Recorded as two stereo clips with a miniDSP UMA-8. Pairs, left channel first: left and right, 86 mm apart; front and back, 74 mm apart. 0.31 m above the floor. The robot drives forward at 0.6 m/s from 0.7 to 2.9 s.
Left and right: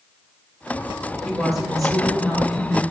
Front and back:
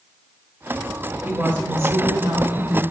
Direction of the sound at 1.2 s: 175° right.